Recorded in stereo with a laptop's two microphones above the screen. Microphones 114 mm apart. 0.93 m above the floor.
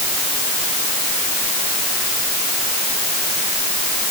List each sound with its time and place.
Only background noise.